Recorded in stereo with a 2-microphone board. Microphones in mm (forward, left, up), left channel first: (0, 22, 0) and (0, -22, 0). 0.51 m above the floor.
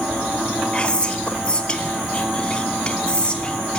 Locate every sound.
0.7 s whispering: 25° left (ahead or behind), 0.7 m